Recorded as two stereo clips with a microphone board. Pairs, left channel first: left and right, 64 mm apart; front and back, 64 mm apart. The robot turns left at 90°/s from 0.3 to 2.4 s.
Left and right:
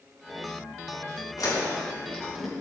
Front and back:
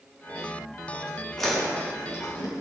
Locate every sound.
1.4 s chewing: 85° left, 4.5 m; by 2.5 s 5° right, 4.5 m